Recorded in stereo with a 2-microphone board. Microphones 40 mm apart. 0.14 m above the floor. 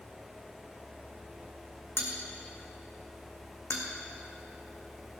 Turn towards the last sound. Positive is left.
turn(degrees=80)